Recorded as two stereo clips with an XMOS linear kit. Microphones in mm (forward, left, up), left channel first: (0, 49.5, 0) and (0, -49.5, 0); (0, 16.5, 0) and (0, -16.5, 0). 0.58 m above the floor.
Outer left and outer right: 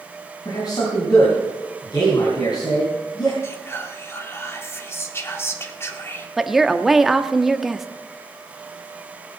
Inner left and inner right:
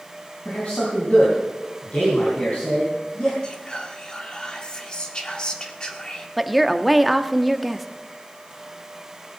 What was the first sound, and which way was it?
A man speaking, 50° left (ahead or behind).